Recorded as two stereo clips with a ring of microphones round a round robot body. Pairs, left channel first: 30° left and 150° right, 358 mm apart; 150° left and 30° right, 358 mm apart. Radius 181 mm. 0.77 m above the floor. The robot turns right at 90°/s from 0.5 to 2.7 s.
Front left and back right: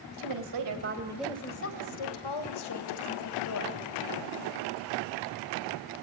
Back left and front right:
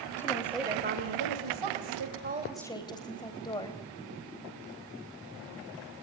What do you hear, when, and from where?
0.2 s a woman speaking: 125° right, 4 m; by 3.8 s 70° left, 4 m